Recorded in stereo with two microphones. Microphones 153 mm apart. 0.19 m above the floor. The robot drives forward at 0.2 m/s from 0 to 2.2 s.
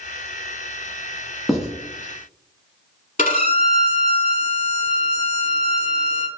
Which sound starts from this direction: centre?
Writing, at 1.5 s.